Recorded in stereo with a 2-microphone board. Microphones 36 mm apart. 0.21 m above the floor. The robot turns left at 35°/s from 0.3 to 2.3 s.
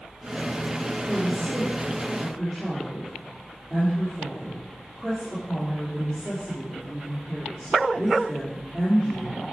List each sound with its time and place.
1.1 s a woman speaking: 115° right, 4 m; by 9.4 s 160° right, 4 m